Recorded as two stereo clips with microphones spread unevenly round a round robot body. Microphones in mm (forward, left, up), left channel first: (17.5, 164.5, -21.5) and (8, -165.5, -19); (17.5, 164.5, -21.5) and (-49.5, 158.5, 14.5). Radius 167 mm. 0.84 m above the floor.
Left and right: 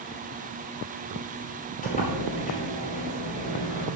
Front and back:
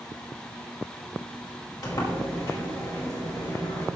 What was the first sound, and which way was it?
A sliding door, 20° left.